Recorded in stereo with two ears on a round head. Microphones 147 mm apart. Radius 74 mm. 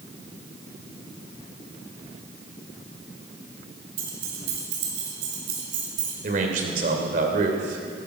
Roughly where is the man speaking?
Right.